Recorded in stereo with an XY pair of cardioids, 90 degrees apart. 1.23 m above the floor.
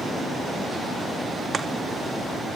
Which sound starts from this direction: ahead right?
Chopping, at 1.5 s.